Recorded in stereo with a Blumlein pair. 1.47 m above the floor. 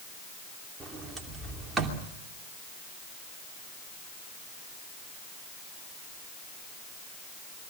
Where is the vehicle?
I don't hear a vehicle.